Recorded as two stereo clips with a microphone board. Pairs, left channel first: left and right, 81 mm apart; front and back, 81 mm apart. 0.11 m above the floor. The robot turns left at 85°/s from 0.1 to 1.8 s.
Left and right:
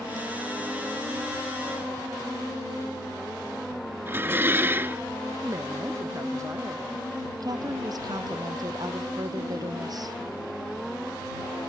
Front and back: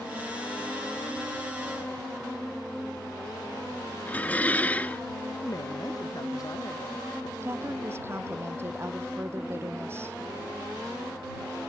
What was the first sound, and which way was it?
Dishes clattering, 55° right.